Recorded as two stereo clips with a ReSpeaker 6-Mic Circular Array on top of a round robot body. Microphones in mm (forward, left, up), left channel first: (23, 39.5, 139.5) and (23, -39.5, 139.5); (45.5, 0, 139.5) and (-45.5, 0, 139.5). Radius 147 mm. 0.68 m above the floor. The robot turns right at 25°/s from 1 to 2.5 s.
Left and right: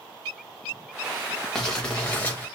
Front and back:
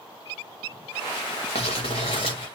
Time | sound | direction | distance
1.6 | crumpling | 5° left | 0.5 m